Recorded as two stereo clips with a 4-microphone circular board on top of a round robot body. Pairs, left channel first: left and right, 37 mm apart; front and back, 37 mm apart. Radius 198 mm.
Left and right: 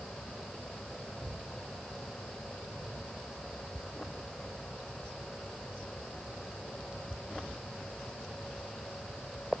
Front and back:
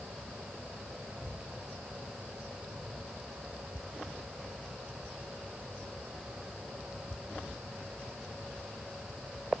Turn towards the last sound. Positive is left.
No sound to turn to.